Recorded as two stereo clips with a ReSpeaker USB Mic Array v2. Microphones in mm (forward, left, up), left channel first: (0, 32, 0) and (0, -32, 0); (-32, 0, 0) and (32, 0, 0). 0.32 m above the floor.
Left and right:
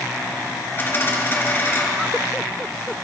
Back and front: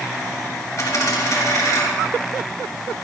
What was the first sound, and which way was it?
A dropped coin, 145° left.